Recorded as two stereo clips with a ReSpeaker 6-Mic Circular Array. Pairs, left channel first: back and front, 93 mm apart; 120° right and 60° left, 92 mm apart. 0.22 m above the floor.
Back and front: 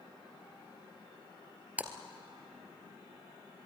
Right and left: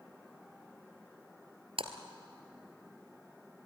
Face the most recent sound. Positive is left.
turn(degrees=70)